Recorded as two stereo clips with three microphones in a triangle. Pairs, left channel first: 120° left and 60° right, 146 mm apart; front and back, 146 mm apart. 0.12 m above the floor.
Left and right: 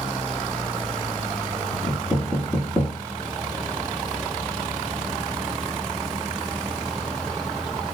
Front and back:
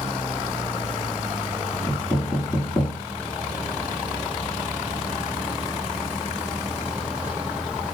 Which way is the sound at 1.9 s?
55° left.